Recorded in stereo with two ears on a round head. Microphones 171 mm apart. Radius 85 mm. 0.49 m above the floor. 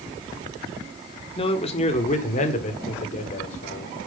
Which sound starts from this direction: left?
A man speaking, at 1.4 s.